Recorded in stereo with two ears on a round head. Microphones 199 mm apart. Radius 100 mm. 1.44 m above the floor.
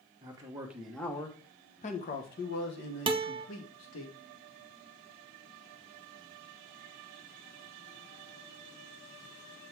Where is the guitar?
25° right (ahead or behind), 0.5 m.